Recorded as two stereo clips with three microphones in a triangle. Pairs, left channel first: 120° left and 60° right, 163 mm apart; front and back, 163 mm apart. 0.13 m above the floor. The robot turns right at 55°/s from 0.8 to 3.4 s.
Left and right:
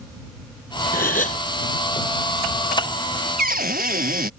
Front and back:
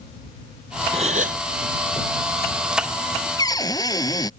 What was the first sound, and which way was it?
A gasp, 135° left.